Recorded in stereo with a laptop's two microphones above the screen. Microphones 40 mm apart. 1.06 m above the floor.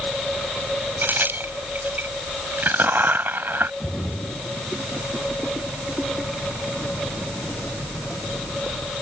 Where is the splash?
45° left (ahead or behind).